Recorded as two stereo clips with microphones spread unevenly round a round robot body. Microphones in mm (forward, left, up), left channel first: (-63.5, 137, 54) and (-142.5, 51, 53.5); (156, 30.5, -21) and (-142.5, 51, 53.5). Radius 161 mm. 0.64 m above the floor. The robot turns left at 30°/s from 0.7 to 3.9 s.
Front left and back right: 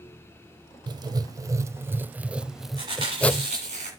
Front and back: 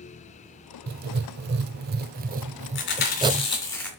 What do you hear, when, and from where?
0.9 s writing: 165° right, 0.5 m; by 3.5 s 115° left, 0.5 m
2.8 s chewing: 55° right, 2.5 m; by 3.9 s 90° right, 2.5 m